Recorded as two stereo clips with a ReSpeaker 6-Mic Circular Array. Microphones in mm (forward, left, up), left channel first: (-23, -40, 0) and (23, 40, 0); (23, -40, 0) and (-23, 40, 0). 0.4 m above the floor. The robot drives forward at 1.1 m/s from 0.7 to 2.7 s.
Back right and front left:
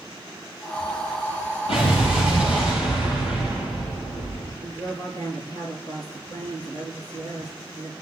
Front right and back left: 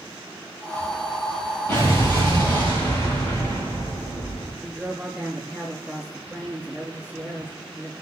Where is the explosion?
125° right, 9 m; by 4.5 s 130° right, 9.5 m.